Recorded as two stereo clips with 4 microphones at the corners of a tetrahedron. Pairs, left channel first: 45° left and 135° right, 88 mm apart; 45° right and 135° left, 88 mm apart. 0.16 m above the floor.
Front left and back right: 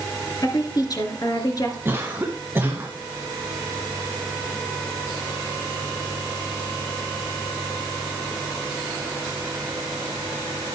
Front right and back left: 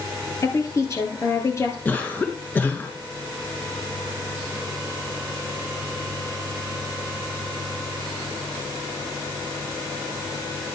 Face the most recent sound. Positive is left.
turn(degrees=-95)